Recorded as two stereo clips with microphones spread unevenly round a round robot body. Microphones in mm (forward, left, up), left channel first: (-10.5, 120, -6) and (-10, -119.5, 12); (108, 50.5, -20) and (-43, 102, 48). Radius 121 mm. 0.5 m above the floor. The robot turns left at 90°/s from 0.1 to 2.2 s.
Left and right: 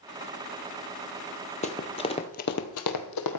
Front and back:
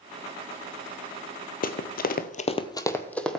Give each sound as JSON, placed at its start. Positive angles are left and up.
{"t": 1.6, "sound": "running footsteps", "azimuth_deg": 30, "distance_m": 0.7}